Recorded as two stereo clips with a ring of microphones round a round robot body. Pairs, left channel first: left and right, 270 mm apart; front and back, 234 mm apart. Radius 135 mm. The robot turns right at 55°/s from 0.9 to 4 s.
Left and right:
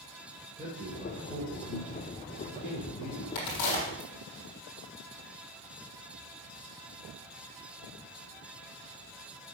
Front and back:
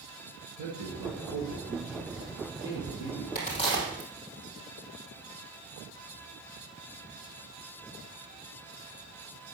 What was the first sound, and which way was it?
A man speaking, 170° right.